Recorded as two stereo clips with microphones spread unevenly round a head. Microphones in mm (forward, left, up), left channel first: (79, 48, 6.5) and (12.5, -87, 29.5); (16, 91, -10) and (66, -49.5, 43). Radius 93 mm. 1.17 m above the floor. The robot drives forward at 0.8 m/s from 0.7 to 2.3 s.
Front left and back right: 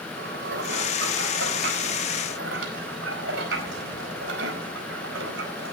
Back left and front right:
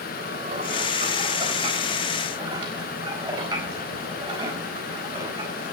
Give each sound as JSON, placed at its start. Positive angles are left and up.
{"t": 0.2, "sound": "dishes clattering", "azimuth_deg": -125, "distance_m": 3.5}